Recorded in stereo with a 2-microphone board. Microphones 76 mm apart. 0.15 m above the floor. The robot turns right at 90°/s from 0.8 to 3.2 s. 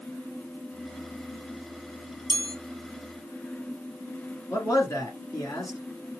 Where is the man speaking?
50° left (ahead or behind), 1.6 m.